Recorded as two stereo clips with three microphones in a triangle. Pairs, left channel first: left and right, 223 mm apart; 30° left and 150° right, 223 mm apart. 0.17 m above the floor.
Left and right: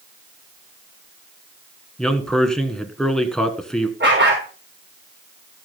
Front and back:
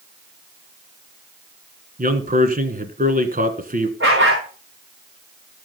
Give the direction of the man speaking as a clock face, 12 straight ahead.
6 o'clock.